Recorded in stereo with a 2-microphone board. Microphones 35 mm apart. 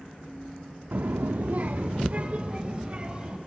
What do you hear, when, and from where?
0.9 s a child speaking: 65° right (ahead or behind), 0.6 m; by 3.4 s 30° right (ahead or behind), 2.5 m